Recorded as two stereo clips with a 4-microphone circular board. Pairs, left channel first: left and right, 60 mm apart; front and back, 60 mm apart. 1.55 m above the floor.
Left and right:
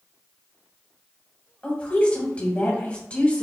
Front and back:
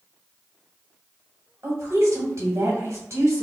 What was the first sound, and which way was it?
A woman speaking, 155° left.